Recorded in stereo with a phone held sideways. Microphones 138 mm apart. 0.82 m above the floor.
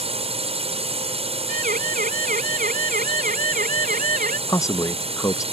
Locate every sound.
0.0 s a drone: 45° right (ahead or behind)
1.5 s a siren: 75° right (ahead or behind); by 4.4 s 80° right
4.5 s a man speaking: 20° left (ahead or behind)